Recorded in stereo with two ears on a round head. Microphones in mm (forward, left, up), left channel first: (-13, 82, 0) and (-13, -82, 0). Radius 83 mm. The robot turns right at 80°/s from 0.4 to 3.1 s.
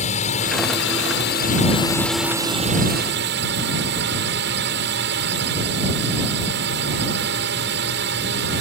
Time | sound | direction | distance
0.0 | a drone | 40° left | ?